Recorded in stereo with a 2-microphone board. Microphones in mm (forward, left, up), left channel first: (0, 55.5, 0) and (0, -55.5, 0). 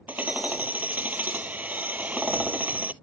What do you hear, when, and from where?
0.1 s hammering: 15° right (ahead or behind)